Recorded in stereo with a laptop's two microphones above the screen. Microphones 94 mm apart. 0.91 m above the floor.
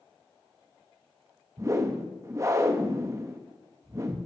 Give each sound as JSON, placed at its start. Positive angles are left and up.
{"t": 1.6, "sound": "a whoosh", "side_deg": -30, "distance_m": 0.5}